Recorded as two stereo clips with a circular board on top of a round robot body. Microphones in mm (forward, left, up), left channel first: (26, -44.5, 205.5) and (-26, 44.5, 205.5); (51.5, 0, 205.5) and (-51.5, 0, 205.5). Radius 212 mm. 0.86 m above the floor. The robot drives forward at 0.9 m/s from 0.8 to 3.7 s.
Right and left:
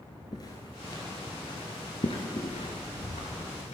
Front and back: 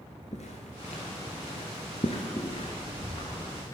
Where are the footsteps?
10° right, 1.0 m; by 3.8 s 55° right, 1.0 m.